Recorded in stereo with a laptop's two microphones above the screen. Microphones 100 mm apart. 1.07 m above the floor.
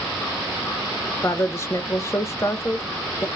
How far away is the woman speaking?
About 0.5 m.